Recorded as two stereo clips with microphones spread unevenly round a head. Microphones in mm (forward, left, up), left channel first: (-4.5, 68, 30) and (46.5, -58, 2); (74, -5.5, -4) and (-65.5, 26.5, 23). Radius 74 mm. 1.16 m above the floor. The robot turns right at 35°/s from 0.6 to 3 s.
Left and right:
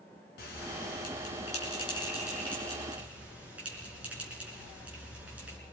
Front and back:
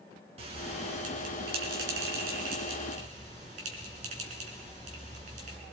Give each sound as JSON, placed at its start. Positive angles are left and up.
{"t": 0.4, "sound": "a bell", "azimuth_deg": 125, "distance_m": 4.0}